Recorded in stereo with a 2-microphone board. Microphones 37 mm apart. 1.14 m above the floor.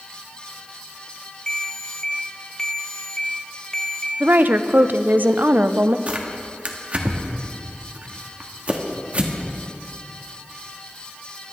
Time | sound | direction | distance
1.5 | a ringtone | 20° left (ahead or behind) | 1.5 m
4.2 | a woman speaking | 55° right (ahead or behind) | 0.5 m
6.1 | tearing paper | 35° right (ahead or behind) | 1.2 m